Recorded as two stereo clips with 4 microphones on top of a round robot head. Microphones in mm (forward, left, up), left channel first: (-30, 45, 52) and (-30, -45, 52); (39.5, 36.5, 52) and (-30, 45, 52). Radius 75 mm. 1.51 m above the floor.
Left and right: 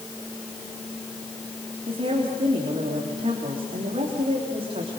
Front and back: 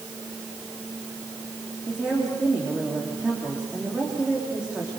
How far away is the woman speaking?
About 3.5 m.